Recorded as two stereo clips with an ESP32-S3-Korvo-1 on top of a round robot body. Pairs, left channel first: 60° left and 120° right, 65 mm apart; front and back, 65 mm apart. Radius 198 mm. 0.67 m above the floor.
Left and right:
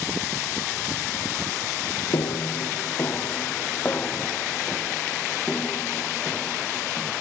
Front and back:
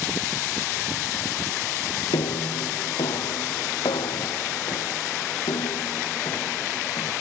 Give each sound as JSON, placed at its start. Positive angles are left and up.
{"t": 2.1, "sound": "footsteps", "azimuth_deg": 15}